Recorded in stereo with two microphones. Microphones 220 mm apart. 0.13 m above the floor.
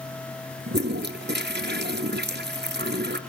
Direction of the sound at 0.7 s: 50° right (ahead or behind).